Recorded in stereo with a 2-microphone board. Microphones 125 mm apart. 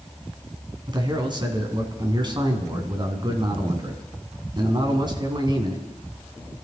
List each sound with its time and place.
0.9 s a man speaking: 40° right (ahead or behind), 2.5 m